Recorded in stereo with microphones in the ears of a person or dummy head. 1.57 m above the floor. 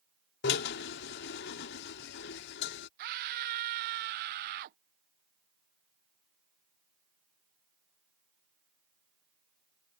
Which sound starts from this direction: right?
A scream, at 3.0 s.